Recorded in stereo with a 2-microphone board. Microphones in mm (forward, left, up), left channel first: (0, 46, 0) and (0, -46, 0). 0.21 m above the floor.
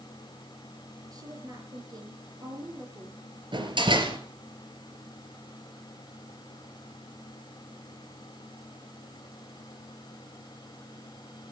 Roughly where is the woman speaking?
Right.